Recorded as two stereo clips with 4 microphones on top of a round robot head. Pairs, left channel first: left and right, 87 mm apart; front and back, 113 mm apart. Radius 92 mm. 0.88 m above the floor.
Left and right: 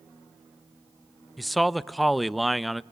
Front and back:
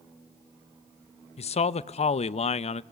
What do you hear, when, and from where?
1.4 s a man speaking: straight ahead, 0.6 m